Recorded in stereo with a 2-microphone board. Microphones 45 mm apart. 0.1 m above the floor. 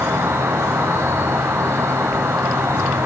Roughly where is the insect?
Right.